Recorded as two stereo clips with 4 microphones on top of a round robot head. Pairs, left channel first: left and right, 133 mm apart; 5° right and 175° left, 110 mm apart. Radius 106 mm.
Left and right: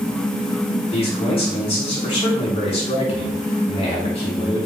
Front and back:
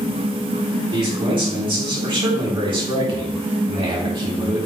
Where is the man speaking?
135° left, 4 m.